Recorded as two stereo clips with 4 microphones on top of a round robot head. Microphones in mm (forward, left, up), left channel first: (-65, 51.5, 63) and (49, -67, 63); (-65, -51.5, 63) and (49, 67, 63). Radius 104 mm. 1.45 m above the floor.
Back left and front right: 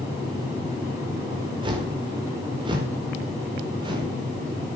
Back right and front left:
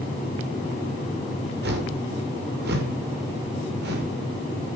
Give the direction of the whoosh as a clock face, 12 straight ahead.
11 o'clock.